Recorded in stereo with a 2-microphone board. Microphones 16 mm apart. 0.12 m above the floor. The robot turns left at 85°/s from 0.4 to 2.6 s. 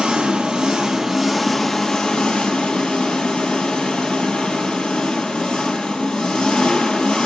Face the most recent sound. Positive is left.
turn(degrees=90)